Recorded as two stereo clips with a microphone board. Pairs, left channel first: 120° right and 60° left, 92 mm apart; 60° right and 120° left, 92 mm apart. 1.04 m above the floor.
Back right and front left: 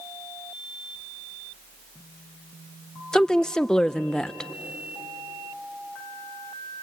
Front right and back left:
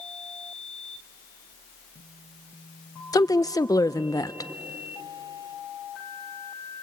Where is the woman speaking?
40° right, 0.5 m.